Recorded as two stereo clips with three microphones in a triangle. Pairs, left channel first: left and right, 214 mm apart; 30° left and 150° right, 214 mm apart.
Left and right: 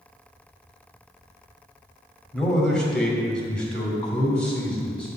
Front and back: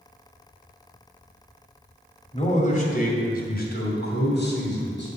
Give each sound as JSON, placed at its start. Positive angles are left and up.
{"t": 2.3, "sound": "a man speaking", "azimuth_deg": 5, "distance_m": 1.7}